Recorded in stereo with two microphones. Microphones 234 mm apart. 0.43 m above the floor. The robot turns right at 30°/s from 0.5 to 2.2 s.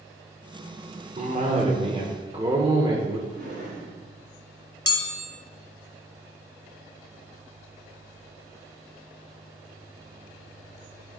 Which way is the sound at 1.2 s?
80° right.